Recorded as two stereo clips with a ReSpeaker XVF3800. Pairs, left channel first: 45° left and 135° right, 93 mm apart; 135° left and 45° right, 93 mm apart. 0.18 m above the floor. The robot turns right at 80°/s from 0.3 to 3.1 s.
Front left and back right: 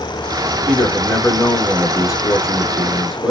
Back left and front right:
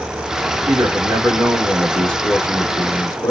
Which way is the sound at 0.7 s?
55° right.